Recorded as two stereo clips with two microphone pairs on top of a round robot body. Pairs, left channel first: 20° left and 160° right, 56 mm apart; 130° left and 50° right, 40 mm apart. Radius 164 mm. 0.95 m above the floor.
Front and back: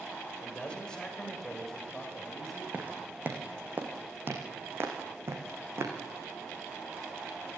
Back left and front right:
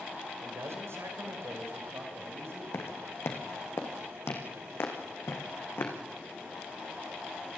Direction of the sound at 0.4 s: 50° right.